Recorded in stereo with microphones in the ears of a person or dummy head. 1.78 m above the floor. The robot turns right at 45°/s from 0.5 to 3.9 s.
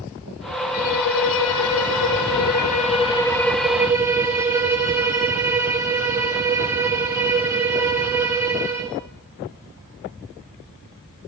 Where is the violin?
50° left, 3.5 m; by 9.0 s 170° right, 3.5 m.